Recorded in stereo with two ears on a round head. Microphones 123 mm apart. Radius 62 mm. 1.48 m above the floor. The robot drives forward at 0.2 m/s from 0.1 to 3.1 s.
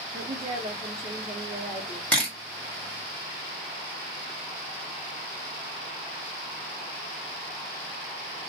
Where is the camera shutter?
10° left (ahead or behind), 1.1 m.